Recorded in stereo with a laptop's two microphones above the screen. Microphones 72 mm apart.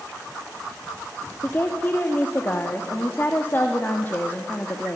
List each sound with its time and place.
1.4 s a woman speaking: 30° left (ahead or behind), 1.8 m